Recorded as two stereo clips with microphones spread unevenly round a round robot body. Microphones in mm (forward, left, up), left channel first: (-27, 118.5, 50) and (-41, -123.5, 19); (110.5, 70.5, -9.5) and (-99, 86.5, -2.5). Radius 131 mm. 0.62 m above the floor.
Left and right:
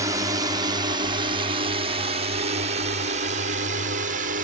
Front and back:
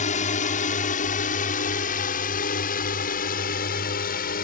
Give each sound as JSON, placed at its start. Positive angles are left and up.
{"t": 0.0, "sound": "a drone", "azimuth_deg": -35}